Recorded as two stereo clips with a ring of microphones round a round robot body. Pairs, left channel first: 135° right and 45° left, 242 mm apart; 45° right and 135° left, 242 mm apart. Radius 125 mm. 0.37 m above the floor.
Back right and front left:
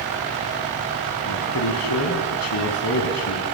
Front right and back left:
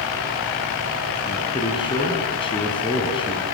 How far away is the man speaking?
About 3 m.